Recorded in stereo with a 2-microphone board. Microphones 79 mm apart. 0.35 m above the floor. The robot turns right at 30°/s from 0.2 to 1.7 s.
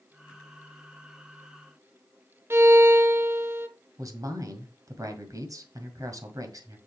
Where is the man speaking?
45° right (ahead or behind), 2.0 m.